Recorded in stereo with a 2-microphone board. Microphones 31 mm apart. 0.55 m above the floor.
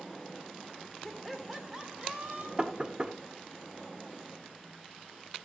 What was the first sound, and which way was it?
Laughter, 15° left (ahead or behind).